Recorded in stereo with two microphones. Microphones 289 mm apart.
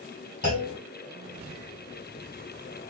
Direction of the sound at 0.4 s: 55° left (ahead or behind).